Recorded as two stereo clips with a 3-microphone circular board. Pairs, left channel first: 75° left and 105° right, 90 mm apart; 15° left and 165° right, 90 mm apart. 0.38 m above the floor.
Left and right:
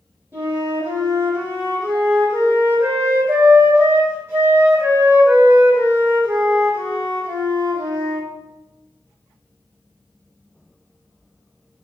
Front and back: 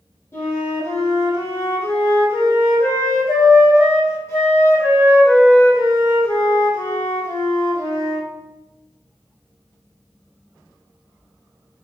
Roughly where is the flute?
Ahead right.